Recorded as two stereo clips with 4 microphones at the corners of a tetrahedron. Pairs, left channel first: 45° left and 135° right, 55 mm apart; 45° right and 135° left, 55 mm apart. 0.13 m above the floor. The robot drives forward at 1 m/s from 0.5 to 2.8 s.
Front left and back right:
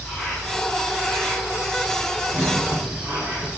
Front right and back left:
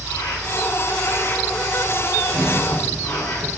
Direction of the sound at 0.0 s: 30° right.